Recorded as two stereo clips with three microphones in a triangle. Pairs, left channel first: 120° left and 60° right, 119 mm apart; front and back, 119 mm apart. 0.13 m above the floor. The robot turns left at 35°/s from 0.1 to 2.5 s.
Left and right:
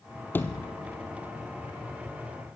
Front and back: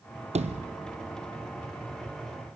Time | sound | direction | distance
0.3 | a sliding door | 165° right | 1.1 m